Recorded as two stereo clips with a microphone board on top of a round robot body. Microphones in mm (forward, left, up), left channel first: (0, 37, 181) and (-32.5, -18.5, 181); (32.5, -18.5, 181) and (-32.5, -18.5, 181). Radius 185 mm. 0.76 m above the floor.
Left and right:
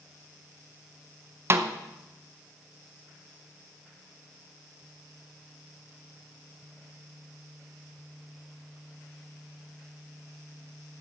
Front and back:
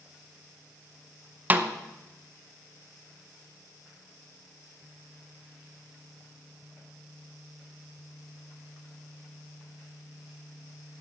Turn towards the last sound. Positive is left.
turn(degrees=-130)